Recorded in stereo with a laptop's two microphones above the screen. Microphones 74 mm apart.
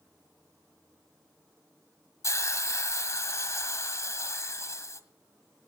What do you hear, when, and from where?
2.2 s a hiss: 45° left (ahead or behind), 1.7 m